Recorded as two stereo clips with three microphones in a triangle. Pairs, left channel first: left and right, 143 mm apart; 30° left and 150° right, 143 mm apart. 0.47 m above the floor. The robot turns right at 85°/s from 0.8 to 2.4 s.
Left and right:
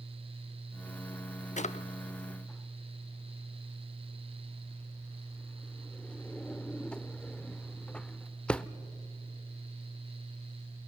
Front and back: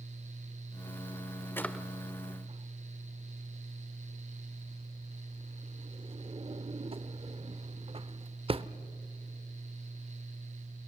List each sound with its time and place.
1.6 s a drawer: 100° left, 0.6 m; by 8.6 s 170° left, 0.6 m